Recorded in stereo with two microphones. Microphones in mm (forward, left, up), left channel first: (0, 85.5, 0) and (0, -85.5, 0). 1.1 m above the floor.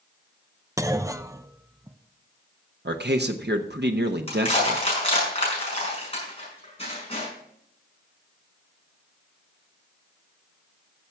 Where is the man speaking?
85° right, 0.9 m.